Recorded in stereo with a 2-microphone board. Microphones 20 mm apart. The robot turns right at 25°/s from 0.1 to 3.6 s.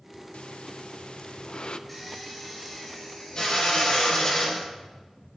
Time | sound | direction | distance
0.3 | breathing | 90° left | 0.5 m
1.9 | a drill | 5° left | 5 m